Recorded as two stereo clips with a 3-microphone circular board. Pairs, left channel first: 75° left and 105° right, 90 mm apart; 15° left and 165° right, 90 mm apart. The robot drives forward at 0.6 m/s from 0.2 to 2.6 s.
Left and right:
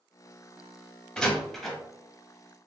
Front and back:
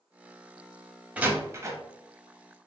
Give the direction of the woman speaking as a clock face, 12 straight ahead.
I don't hear a woman speaking.